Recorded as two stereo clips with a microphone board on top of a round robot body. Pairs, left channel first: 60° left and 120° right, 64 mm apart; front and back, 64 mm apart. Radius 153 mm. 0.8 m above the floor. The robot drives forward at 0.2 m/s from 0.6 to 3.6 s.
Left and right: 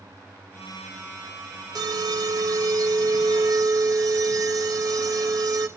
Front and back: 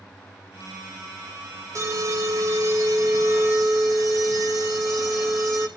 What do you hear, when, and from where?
1.8 s an alarm: 140° right, 3.5 m